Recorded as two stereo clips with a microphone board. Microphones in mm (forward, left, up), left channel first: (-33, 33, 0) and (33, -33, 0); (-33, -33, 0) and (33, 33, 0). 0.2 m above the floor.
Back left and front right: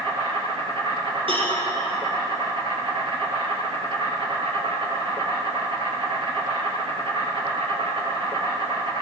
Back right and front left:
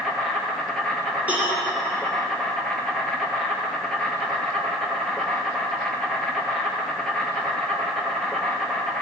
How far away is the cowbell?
About 6 m.